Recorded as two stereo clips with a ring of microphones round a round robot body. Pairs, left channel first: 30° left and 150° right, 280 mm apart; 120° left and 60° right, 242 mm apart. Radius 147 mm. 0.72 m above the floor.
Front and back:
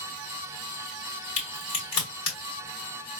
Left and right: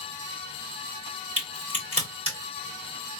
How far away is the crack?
About 3 m.